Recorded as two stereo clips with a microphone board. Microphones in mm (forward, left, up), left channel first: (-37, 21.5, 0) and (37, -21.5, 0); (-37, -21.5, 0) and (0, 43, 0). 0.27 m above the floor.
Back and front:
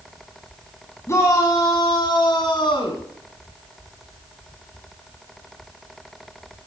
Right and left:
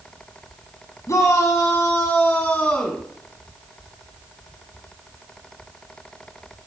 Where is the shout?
160° right, 1.7 m; by 3.0 s 165° left, 2 m.